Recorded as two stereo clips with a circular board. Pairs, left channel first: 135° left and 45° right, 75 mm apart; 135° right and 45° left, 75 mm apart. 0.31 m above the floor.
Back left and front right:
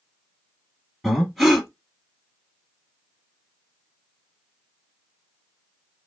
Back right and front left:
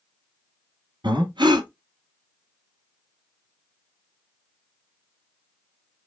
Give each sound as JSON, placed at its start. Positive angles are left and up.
{"t": 1.0, "sound": "breathing", "azimuth_deg": 45, "distance_m": 1.7}